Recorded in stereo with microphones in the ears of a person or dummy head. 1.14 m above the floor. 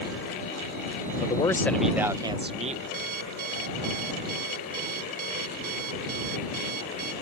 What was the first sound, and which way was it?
A man speaking, 30° left (ahead or behind).